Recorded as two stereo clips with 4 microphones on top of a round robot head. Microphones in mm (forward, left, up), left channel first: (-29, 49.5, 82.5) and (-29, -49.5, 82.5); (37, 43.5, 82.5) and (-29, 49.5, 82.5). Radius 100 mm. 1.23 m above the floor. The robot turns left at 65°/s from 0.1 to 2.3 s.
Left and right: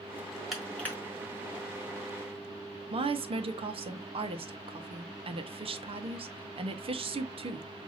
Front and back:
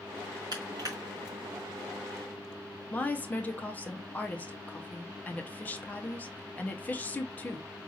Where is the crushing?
175° right, 1.2 m; by 0.9 s 155° left, 1.2 m.